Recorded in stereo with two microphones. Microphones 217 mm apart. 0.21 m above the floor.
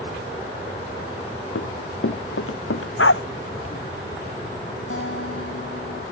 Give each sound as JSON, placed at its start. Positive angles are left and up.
{"t": 1.6, "sound": "running footsteps", "side_deg": 75}
{"t": 3.0, "sound": "a dog barking", "side_deg": 75}
{"t": 4.9, "sound": "a guitar", "side_deg": 70}